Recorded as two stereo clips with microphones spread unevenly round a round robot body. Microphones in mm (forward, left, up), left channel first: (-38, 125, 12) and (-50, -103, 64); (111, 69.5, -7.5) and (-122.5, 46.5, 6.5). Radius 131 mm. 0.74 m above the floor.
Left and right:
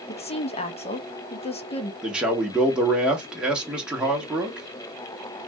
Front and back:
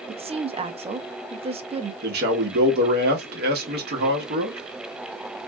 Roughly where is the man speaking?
Behind.